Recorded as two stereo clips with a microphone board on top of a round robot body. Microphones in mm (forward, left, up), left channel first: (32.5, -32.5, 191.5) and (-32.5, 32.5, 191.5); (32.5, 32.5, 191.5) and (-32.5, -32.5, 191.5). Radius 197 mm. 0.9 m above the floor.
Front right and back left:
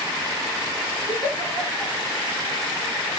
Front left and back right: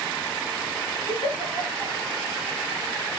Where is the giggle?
5° left, 2 m.